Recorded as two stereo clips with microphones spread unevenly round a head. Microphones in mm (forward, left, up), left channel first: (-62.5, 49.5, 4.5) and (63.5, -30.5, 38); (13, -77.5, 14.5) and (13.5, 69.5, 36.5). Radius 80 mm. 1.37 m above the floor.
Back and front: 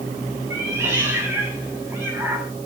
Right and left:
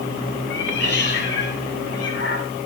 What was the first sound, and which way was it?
A cat meowing, 110° right.